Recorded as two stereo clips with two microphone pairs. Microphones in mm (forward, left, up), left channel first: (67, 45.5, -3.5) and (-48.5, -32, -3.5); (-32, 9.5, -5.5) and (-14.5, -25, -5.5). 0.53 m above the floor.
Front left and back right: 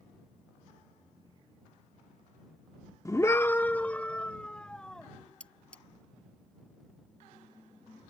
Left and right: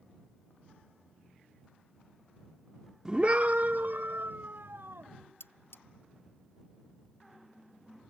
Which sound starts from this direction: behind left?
Cutlery clinking, at 5.4 s.